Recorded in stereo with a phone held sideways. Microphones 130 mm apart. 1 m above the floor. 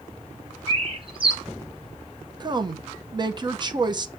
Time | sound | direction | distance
0.7 | a bird | 40° right (ahead or behind) | 1.0 m
2.4 | a woman speaking | 30° right (ahead or behind) | 0.9 m